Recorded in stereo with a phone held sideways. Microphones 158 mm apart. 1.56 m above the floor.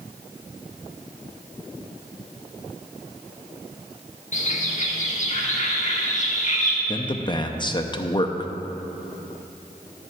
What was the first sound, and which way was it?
A bird, 50° left (ahead or behind).